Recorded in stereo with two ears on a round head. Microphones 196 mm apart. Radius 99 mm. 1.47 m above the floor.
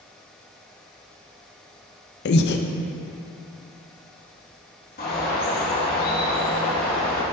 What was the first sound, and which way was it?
Breathing, 50° left (ahead or behind).